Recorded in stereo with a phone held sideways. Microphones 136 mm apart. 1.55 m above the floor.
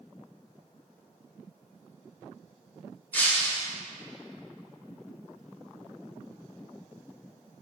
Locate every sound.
3.1 s breaking glass: 15° left (ahead or behind), 0.7 m